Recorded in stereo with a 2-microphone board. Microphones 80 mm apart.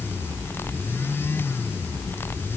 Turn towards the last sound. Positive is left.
No sound to turn to.